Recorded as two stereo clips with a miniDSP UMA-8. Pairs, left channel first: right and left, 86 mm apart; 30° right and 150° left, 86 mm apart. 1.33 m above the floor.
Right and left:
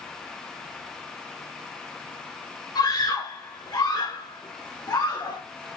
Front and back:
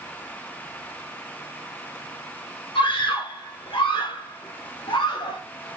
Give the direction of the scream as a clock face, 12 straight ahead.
2 o'clock.